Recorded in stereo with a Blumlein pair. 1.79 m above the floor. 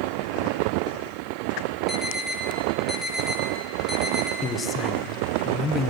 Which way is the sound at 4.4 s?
15° left.